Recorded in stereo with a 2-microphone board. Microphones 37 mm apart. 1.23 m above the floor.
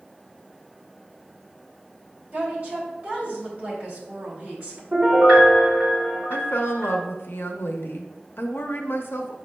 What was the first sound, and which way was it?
A woman speaking, 30° right (ahead or behind).